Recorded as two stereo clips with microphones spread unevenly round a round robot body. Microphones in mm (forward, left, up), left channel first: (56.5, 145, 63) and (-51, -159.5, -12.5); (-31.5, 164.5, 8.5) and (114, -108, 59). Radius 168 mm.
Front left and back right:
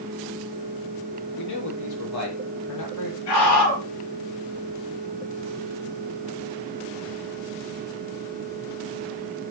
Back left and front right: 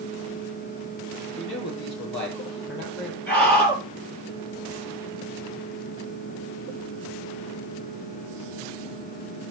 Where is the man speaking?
65° left, 6.5 m.